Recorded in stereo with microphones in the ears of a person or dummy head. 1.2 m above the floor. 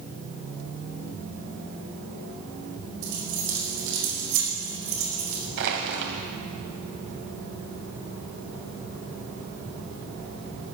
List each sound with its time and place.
3.0 s keys jangling: 75° right (ahead or behind), 5 m
5.6 s crushing: 65° right (ahead or behind), 2.5 m